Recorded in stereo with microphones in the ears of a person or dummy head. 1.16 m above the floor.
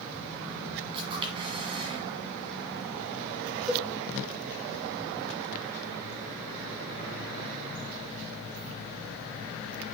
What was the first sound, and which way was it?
A camera shutter, 30° right (ahead or behind).